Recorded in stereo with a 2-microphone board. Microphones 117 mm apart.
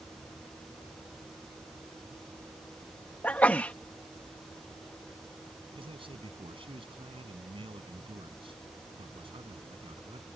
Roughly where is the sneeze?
Centre.